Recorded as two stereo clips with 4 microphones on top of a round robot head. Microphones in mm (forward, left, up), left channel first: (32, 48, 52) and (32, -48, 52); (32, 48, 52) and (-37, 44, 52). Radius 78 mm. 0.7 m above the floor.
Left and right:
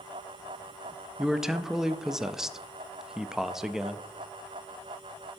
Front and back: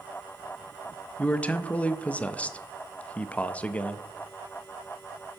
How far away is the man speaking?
About 0.5 m.